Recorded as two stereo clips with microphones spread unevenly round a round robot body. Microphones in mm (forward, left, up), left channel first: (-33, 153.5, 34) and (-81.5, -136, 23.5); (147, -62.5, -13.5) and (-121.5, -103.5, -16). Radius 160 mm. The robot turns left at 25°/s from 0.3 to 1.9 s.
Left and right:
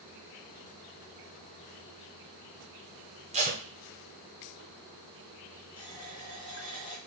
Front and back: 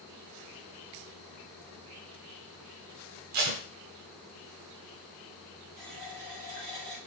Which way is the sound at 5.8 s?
155° left.